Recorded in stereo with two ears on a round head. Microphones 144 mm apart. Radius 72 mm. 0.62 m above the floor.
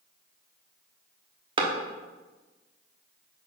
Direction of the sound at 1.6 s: 30° right (ahead or behind).